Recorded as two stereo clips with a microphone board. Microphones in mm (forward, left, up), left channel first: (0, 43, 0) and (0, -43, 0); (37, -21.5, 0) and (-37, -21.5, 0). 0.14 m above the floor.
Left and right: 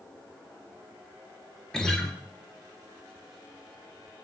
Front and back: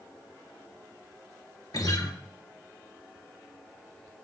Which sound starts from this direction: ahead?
A guitar, at 1.7 s.